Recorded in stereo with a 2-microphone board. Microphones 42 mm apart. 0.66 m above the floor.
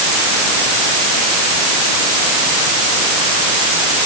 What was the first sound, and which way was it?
Only background noise.